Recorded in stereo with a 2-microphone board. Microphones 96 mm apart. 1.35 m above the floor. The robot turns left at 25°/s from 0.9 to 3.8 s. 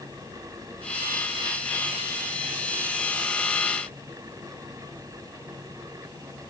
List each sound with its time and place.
Only background noise.